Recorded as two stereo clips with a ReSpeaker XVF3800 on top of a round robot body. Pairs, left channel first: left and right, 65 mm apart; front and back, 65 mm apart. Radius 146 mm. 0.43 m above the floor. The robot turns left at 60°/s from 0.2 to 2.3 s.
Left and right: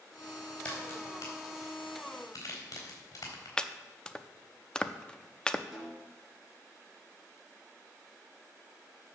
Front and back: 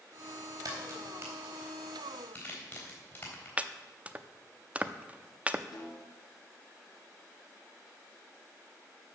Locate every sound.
0.7 s a crack: 155° left, 4 m; by 3.5 s 55° left, 4 m
3.6 s chopping: 145° left, 0.8 m
5.7 s a snare drum: straight ahead, 3.5 m